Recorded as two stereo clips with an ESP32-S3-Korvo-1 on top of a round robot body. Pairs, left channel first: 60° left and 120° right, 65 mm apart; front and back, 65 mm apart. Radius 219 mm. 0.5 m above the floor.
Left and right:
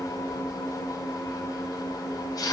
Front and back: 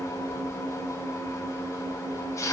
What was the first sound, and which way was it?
An engine running, 45° left.